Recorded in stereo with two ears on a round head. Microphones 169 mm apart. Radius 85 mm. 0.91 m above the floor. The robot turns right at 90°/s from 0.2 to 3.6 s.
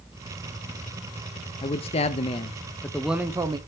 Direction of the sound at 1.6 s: 50° left.